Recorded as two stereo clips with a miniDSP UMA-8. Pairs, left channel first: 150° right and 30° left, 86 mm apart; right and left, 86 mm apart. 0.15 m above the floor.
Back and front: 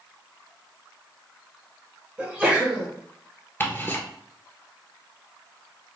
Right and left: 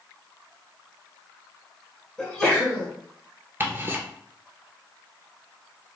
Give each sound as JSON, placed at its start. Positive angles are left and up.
{"t": 2.2, "sound": "a sneeze", "azimuth_deg": -15, "distance_m": 1.4}
{"t": 3.6, "sound": "ticking", "azimuth_deg": 150, "distance_m": 1.0}